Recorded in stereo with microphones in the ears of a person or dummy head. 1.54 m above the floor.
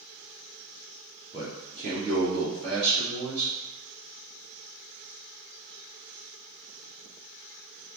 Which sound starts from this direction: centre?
A man speaking, at 1.3 s.